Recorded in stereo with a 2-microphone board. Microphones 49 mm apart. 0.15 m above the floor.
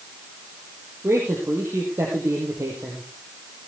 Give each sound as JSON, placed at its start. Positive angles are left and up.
{"t": 1.0, "sound": "a man speaking", "side_deg": -75, "distance_m": 4.0}